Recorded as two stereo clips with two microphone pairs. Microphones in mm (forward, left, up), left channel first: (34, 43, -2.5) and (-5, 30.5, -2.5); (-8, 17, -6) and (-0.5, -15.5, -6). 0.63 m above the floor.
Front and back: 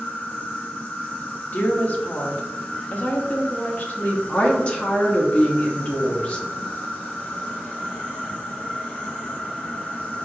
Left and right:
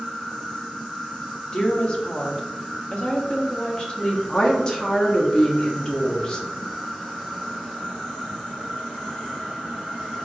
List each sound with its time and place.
0.0 s an insect: 40° left, 1.5 m
1.5 s a woman speaking: 50° left, 0.9 m
4.3 s a woman speaking: 55° left, 0.9 m